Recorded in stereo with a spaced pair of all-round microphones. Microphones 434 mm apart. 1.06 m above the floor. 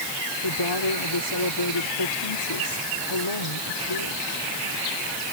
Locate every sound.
0.4 s a woman speaking: 80° left